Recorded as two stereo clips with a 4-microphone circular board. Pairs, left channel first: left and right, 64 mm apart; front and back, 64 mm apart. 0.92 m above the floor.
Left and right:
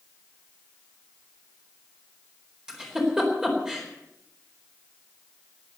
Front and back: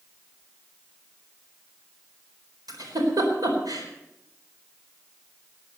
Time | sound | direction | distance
2.7 | a giggle | 170° right | 4 m